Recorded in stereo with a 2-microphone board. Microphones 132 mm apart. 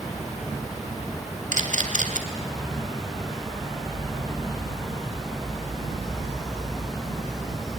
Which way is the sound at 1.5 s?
85° right.